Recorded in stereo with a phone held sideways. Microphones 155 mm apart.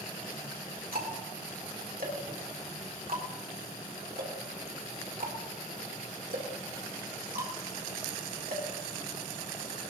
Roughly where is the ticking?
Right.